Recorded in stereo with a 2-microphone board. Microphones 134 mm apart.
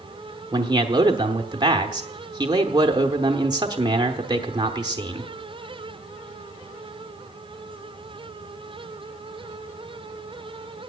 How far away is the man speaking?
About 1.0 m.